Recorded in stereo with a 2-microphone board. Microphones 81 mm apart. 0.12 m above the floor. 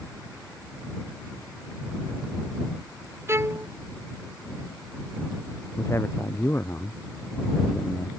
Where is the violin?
30° right (ahead or behind).